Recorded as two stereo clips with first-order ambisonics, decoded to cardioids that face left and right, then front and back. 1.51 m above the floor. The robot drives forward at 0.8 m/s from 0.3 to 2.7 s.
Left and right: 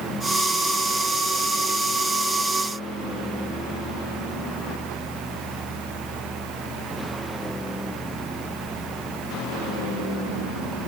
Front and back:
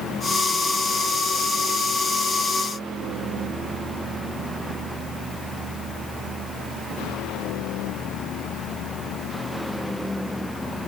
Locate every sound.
Only background noise.